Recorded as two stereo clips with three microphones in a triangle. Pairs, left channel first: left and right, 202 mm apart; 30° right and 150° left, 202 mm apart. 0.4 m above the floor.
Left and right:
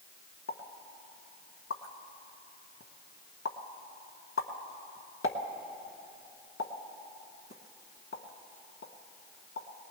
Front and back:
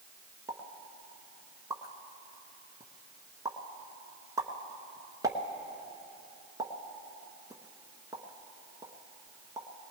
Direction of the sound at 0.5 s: 75° left.